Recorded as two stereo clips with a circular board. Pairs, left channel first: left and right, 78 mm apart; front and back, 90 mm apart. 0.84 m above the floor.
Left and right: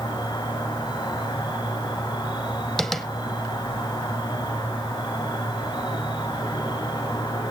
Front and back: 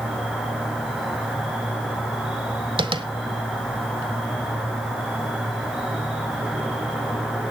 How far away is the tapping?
About 1.2 m.